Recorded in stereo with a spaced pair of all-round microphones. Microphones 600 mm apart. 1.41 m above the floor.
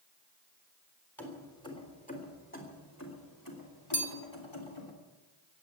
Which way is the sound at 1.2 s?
Centre (ahead or behind).